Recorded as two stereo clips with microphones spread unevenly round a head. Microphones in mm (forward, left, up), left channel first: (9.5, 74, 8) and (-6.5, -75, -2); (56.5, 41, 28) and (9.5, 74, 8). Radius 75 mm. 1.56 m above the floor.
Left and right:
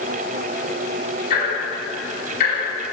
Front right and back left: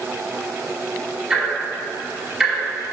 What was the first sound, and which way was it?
Ticking, 60° left.